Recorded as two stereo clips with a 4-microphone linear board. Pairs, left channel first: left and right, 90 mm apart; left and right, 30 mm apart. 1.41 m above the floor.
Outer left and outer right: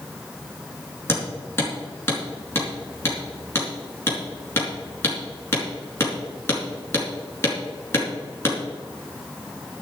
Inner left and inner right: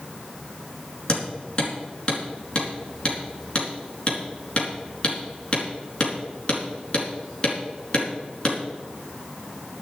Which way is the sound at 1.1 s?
30° left (ahead or behind).